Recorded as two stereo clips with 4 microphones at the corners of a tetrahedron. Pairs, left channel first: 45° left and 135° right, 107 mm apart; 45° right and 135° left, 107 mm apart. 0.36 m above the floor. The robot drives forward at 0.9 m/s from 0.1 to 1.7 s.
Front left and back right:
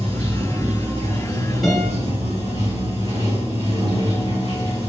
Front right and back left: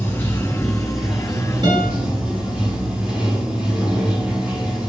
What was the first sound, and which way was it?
Running water, 115° right.